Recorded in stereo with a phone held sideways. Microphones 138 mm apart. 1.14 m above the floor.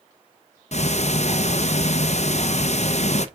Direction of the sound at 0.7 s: 55° left (ahead or behind).